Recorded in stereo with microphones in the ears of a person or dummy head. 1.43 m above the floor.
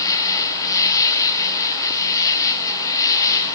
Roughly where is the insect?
Centre.